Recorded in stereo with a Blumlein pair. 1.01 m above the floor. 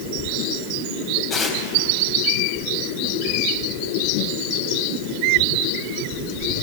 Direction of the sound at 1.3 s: 20° left.